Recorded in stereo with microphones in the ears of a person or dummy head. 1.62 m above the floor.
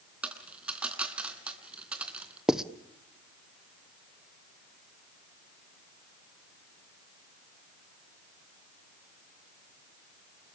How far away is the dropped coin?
About 3.5 m.